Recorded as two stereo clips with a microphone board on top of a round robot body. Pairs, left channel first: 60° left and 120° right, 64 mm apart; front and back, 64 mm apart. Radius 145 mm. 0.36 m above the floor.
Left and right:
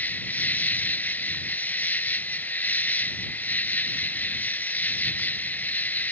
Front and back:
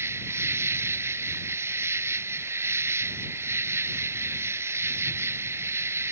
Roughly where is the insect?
Behind left.